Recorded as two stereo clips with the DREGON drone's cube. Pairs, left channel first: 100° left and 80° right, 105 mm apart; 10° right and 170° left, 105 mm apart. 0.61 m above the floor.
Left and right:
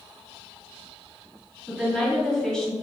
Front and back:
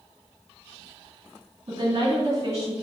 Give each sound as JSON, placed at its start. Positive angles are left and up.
{"t": 1.7, "sound": "a woman speaking", "azimuth_deg": -170, "distance_m": 1.9}